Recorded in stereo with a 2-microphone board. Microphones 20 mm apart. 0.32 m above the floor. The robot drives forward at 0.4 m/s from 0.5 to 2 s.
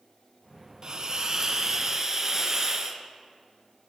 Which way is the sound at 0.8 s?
40° right (ahead or behind).